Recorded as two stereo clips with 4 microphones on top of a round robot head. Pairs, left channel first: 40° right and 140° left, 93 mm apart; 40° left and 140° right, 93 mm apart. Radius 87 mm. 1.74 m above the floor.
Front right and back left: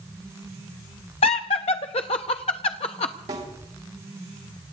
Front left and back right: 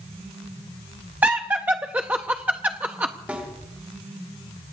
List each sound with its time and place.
1.2 s laughter: 65° right, 0.5 m
3.3 s a snare drum: 150° left, 3 m